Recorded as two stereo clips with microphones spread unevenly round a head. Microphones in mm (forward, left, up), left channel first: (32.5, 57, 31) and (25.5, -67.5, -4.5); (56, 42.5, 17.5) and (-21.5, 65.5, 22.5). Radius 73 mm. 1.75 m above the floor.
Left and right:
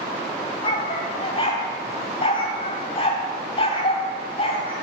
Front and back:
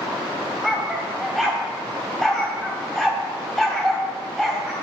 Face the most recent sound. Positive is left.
turn(degrees=70)